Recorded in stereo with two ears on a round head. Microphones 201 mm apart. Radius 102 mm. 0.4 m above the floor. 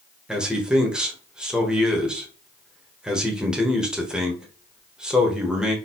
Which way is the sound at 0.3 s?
5° right (ahead or behind).